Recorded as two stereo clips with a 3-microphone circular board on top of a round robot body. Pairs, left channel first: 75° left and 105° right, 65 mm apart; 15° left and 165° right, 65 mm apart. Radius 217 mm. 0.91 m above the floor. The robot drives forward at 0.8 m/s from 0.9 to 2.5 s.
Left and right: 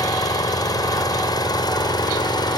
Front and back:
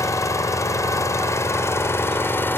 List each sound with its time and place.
0.0 s an engine running: 55° left; by 2.6 s 75° left